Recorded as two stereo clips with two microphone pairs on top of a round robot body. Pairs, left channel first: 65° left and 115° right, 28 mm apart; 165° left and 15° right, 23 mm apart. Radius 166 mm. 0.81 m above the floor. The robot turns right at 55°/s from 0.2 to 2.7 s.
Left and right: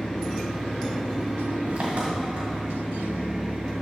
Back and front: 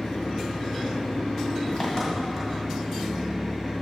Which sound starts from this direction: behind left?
An engine running, at 0.0 s.